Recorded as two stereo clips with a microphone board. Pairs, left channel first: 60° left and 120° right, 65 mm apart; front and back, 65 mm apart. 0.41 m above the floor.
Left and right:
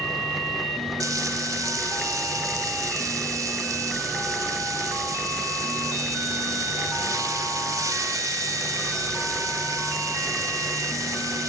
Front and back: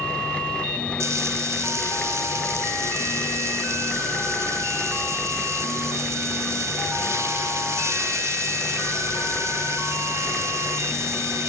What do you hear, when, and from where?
1.0 s frying: 140° right, 1.4 m